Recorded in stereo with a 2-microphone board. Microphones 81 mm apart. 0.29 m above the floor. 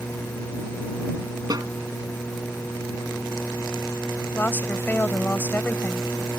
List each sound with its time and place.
1.5 s a snare drum: 50° right (ahead or behind)
4.3 s a woman speaking: 25° left (ahead or behind)